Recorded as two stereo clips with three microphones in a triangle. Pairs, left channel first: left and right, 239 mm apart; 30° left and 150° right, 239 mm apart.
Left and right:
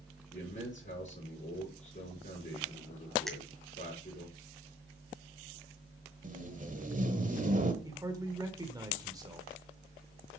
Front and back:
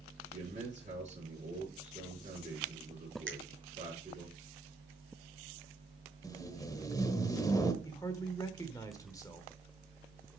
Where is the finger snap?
Straight behind, 2.0 m.